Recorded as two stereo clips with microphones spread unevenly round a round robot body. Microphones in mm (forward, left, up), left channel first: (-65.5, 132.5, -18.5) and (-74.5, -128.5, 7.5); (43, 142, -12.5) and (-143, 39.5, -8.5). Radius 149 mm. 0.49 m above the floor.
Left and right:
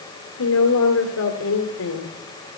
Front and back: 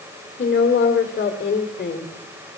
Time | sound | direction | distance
0.4 | a woman speaking | 70° left | 1.8 m